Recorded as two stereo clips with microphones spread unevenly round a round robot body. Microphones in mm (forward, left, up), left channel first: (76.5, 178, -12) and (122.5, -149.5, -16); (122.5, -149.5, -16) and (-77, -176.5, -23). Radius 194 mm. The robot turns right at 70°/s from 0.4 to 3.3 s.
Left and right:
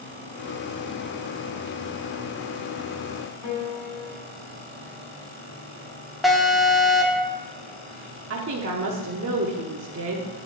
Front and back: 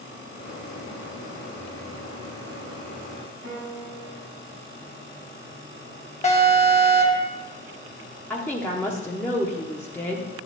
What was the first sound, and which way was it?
A piano, 75° left.